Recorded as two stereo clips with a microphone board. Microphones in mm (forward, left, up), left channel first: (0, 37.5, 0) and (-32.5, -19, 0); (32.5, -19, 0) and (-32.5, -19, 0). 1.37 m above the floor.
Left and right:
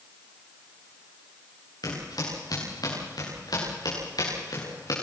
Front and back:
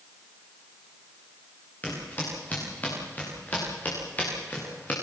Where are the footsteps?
65° left, 9 m.